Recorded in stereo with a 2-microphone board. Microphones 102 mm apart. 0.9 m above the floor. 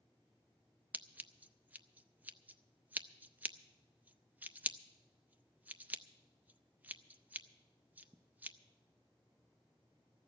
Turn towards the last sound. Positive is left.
turn(degrees=-15)  # may be behind; listen again after turning